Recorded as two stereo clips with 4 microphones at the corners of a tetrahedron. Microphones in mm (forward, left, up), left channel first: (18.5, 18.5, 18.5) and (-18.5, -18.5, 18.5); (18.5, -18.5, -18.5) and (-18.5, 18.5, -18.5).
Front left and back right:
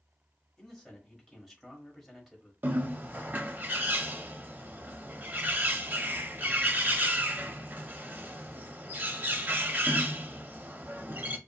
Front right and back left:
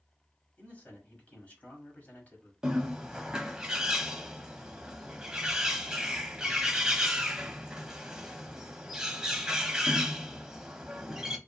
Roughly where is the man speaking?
Ahead right.